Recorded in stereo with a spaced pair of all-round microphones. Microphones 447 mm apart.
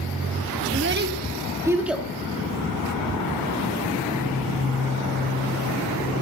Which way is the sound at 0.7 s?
35° right (ahead or behind).